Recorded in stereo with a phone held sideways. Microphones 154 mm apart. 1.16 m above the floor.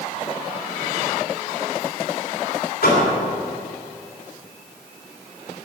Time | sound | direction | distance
2.8 | a door slam | 85° left | 3 m